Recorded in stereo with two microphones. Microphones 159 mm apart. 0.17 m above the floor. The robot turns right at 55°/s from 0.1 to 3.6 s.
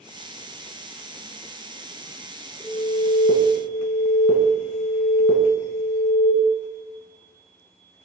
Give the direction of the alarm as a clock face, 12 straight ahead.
3 o'clock.